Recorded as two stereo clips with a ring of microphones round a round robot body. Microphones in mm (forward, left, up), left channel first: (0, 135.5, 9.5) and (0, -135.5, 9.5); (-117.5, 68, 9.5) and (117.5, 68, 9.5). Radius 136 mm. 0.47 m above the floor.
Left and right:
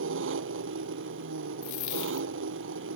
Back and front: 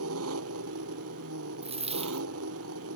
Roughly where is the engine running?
Ahead right.